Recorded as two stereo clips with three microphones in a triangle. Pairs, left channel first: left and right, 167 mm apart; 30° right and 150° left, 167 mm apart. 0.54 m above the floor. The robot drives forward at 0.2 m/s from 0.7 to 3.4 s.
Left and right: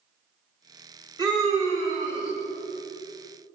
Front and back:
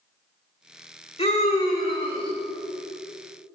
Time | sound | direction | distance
1.2 | a scream | 40° right | 1.6 m